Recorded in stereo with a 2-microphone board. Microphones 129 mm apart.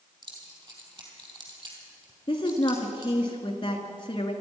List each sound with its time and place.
0.2 s keys jangling: 35° right (ahead or behind), 3.5 m
2.3 s a woman speaking: 35° left (ahead or behind), 2.0 m